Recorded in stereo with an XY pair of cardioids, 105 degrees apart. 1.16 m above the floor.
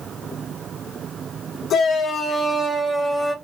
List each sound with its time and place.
1.7 s a shout: 65° left, 0.9 m; by 3.3 s 5° right, 0.9 m